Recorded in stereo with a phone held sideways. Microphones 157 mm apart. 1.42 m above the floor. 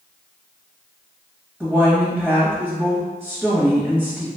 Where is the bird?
No bird in this recording.